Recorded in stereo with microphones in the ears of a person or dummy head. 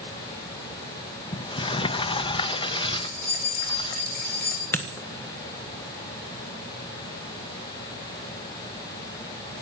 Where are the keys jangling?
50° left (ahead or behind), 3.5 m.